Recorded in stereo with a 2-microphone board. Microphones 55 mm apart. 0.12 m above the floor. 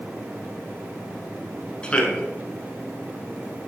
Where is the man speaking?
20° left (ahead or behind), 1.3 m.